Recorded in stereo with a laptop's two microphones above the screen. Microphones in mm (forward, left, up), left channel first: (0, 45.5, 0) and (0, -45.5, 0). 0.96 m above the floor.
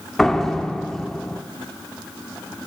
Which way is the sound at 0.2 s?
5° left (ahead or behind).